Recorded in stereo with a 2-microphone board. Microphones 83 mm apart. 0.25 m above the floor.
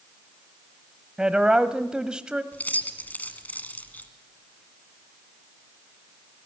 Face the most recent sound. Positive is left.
turn(degrees=20)  # may be behind; listen again after turning